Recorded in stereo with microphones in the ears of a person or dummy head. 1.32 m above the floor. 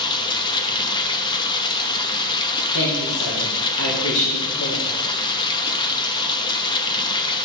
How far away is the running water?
About 0.8 m.